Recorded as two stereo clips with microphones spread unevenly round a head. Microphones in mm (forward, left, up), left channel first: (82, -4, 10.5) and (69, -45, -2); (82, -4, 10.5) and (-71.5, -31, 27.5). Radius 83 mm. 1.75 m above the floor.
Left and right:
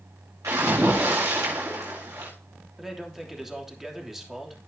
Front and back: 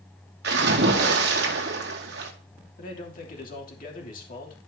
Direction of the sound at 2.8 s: 25° right.